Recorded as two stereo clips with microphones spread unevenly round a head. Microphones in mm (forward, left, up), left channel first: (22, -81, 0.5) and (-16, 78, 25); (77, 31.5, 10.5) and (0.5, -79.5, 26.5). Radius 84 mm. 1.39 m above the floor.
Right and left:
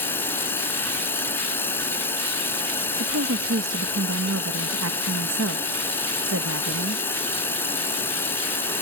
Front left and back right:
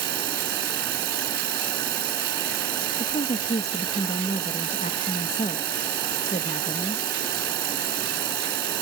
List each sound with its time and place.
0.0 s running water: 155° right
3.0 s a woman speaking: 110° left